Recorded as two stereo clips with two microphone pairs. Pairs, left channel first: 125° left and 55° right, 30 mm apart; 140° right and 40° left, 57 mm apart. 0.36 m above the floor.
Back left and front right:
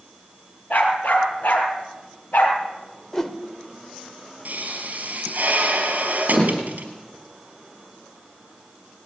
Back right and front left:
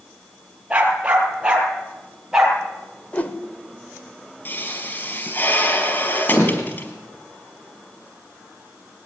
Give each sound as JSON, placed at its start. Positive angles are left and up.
{"t": 0.7, "sound": "a dog barking", "azimuth_deg": 110, "distance_m": 4.0}
{"t": 3.1, "sound": "a whoosh", "azimuth_deg": -175, "distance_m": 1.7}
{"t": 4.5, "sound": "a pop", "azimuth_deg": -90, "distance_m": 4.5}